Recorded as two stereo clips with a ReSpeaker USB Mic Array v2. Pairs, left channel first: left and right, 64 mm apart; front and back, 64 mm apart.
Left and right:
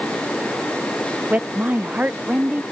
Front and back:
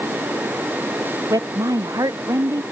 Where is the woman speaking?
155° right.